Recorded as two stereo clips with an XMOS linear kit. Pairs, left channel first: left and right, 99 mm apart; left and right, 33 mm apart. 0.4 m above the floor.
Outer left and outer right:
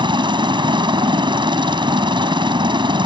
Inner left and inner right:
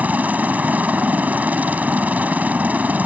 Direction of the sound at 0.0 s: 50° right (ahead or behind).